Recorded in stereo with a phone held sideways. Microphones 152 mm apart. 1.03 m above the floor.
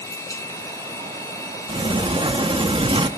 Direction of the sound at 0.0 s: 20° left (ahead or behind).